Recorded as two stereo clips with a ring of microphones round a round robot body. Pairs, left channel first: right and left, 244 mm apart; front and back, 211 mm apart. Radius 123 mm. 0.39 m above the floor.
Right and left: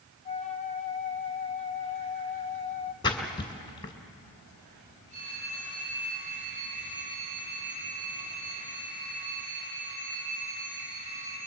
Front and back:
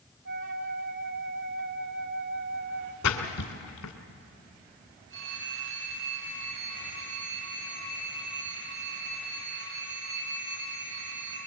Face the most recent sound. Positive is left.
turn(degrees=155)